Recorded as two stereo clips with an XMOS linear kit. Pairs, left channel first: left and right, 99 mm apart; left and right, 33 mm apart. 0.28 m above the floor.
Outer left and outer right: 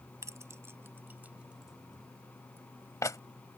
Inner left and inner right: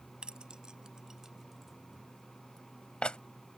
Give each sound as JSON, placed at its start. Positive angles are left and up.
{"t": 0.2, "sound": "keys jangling", "side_deg": -30}